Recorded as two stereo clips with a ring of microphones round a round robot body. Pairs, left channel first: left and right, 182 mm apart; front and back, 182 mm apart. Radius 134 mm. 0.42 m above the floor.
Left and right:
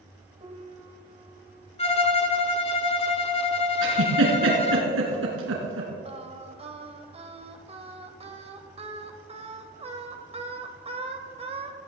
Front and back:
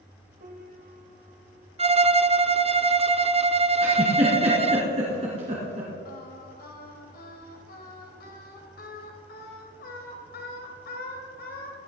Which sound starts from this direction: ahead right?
Singing, at 6.0 s.